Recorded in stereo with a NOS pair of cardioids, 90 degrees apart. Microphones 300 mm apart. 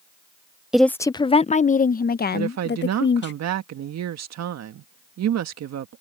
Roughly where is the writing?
I don't hear writing.